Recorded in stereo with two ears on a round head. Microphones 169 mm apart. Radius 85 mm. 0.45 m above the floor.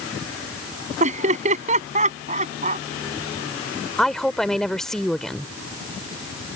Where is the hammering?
No hammering in this recording.